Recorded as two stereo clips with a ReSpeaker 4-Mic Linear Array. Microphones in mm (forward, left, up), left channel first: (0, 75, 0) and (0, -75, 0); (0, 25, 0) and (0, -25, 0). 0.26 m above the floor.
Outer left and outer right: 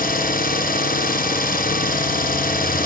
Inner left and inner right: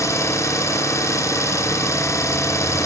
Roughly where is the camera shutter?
No camera shutter in this recording.